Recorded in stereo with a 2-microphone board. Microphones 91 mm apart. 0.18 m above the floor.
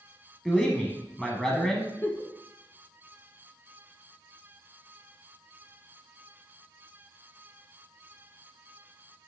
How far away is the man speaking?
About 1.1 m.